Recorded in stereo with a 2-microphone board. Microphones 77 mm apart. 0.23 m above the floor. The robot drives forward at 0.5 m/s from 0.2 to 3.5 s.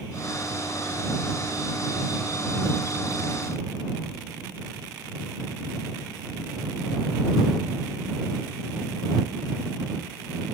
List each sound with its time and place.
Only background noise.